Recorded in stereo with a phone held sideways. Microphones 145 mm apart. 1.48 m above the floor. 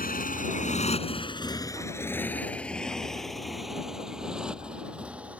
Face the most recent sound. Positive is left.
turn(degrees=-10)  # may be behind; listen again after turning